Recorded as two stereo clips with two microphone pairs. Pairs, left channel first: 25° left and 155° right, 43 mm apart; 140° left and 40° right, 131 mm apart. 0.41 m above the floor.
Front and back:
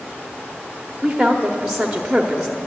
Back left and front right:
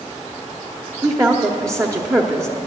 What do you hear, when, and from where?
1.0 s a woman speaking: 85° right, 0.9 m